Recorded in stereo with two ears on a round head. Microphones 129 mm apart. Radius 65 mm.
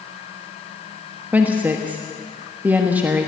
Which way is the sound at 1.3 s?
10° right (ahead or behind).